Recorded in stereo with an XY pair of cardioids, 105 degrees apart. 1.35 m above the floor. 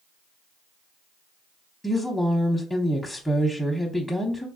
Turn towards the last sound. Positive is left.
turn(degrees=10)